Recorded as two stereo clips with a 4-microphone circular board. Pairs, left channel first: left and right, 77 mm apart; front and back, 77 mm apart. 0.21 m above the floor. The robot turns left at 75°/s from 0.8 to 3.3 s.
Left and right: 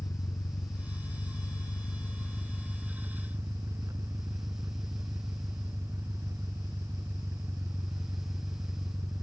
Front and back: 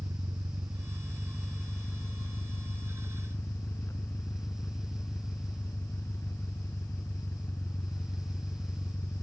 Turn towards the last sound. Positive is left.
turn(degrees=-50)